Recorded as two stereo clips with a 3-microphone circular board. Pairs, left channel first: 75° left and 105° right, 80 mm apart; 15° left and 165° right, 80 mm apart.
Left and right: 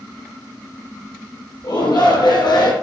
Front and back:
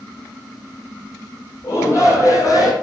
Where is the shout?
70° left, 5.5 m; by 2.7 s 55° left, 5 m.